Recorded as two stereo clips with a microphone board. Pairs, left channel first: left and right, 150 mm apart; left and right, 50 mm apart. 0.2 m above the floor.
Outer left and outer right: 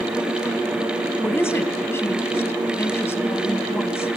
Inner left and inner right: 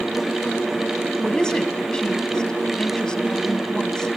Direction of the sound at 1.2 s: 15° left (ahead or behind).